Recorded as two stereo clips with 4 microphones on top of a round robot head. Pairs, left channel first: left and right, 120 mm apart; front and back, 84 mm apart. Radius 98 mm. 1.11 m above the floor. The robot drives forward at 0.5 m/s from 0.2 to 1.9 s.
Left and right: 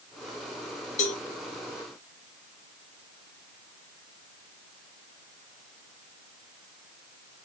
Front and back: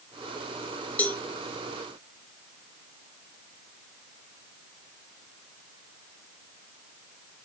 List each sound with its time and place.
1.0 s a cowbell: 70° left, 1.1 m; by 1.2 s 80° left, 1.0 m